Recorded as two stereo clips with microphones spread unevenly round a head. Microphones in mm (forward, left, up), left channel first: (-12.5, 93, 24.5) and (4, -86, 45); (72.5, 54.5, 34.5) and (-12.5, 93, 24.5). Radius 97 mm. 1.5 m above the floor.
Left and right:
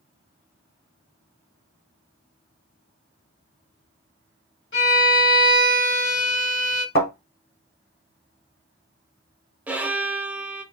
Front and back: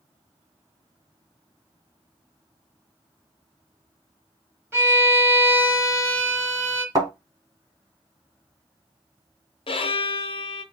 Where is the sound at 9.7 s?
5° right, 0.6 m.